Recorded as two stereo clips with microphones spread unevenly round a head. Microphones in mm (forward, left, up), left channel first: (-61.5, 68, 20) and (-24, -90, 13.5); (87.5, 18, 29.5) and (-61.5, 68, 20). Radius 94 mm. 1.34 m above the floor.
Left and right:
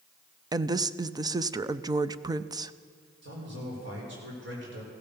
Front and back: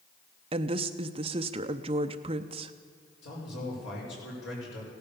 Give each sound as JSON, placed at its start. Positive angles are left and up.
{"t": 0.5, "sound": "a woman speaking", "azimuth_deg": -140, "distance_m": 0.6}
{"t": 3.2, "sound": "a man speaking", "azimuth_deg": -45, "distance_m": 5.5}